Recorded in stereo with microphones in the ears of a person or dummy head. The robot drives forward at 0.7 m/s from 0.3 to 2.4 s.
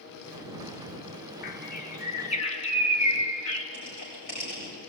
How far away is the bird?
About 1.6 m.